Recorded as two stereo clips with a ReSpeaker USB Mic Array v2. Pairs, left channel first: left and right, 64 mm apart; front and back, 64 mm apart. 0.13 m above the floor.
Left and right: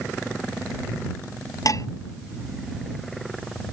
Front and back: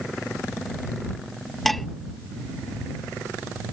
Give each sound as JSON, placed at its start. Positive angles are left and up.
{"t": 1.6, "sound": "dishes clattering", "azimuth_deg": 90}